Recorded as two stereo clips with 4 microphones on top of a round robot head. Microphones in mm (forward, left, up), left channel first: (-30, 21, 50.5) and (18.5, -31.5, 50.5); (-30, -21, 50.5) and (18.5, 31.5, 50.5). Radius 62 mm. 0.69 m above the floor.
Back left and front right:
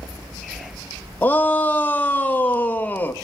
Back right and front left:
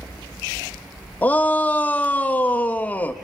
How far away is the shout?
About 0.5 m.